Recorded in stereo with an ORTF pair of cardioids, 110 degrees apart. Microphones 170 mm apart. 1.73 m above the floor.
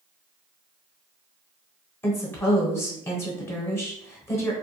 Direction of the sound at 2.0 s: 15° left.